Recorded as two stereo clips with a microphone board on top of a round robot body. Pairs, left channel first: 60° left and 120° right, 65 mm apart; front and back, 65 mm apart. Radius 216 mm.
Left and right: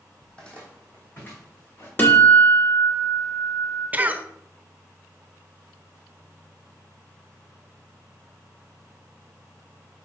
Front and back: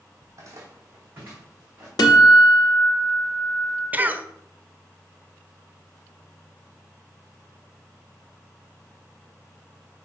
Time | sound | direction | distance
0.2 | footsteps | 145° left | 1.2 m
2.0 | a guitar | 5° right | 0.9 m
3.9 | a cough | 150° right | 0.9 m